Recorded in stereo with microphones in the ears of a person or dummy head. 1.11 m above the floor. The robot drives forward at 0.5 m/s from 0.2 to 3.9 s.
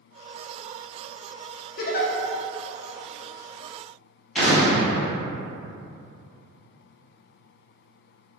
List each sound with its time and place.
1.8 s a giggle: 40° left (ahead or behind), 0.6 m
4.3 s an explosion: 5° right (ahead or behind), 1.5 m